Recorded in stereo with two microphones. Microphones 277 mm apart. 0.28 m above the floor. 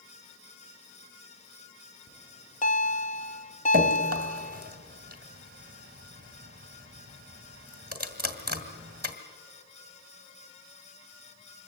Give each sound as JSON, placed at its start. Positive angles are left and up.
{"t": 2.1, "sound": "a bell", "side_deg": 25, "distance_m": 0.9}
{"t": 3.7, "sound": "dripping", "side_deg": -30, "distance_m": 2.0}